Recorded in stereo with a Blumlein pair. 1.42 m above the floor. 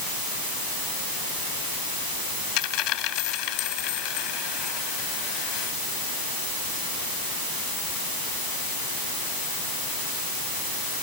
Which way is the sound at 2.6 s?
40° left.